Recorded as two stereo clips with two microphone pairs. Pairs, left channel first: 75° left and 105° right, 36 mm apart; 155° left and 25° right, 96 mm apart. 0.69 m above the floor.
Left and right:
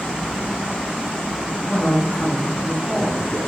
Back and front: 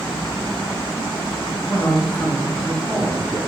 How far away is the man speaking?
About 1.0 m.